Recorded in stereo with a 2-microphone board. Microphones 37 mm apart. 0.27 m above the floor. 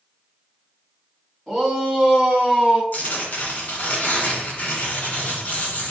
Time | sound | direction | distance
1.5 | a shout | 5° right (ahead or behind) | 2.5 m
2.9 | tearing paper | 45° left (ahead or behind) | 1.8 m